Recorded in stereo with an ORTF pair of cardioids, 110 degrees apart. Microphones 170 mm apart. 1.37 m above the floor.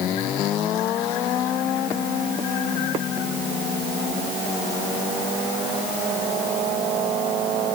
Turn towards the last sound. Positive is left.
No sound to turn to.